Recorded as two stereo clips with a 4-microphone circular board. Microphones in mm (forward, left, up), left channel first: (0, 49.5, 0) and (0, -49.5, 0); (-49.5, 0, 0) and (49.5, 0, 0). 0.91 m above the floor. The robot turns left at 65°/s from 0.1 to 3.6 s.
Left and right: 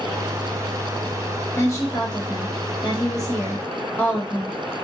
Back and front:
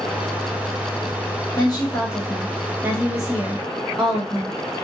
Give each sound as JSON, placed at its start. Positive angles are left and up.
{"t": 1.6, "sound": "a woman speaking", "azimuth_deg": 155, "distance_m": 1.3}